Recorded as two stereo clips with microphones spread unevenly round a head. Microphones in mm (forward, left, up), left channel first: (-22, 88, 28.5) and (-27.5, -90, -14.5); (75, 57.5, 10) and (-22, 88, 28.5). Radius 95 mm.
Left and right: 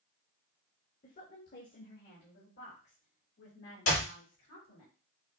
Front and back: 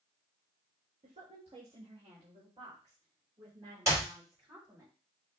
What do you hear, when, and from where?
1.0 s a woman speaking: 135° left, 1.3 m; by 4.9 s 105° left, 3 m
3.9 s a clap: 105° left, 3 m